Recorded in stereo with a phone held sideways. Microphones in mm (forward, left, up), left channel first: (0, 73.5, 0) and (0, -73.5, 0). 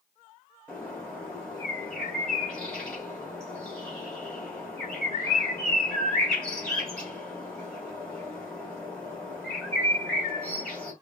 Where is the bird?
5° left (ahead or behind), 2 m.